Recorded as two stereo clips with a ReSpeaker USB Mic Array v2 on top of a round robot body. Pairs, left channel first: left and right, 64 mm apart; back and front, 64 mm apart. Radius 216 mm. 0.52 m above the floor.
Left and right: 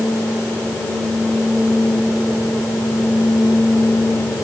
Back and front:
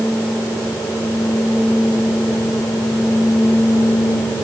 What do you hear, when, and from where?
Only background noise.